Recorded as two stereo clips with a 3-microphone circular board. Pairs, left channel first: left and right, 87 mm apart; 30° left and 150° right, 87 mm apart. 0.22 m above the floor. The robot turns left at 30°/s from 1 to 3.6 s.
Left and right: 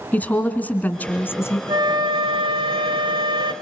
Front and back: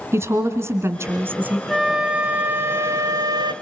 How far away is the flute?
About 0.7 m.